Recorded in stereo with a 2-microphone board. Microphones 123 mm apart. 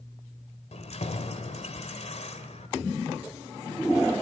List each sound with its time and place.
0.7 s keys jangling: 65° left (ahead or behind), 2.5 m